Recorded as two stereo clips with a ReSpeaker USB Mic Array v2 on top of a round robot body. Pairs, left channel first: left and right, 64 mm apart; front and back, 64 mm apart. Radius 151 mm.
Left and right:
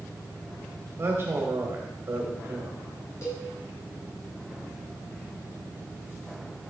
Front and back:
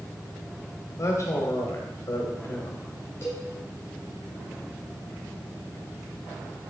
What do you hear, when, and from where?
1.0 s a man speaking: 35° right, 2 m
3.2 s a cowbell: 50° left, 4.5 m